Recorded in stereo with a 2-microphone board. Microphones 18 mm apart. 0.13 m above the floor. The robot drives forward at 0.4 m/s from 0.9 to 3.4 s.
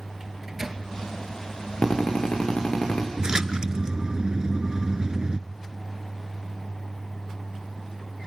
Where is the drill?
65° left (ahead or behind), 6 m; by 3.1 s 70° left (ahead or behind), 6 m.